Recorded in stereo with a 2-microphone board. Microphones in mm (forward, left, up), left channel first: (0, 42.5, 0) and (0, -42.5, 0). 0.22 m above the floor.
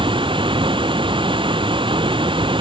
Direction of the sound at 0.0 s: 85° right.